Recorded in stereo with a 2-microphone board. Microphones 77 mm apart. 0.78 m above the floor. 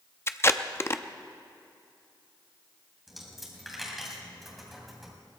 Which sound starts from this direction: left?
Tape being pulled, at 0.3 s.